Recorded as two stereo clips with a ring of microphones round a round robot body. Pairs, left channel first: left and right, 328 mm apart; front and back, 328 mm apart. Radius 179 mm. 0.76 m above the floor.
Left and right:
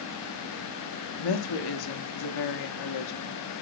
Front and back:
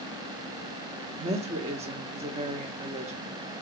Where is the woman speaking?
110° left, 1.1 m.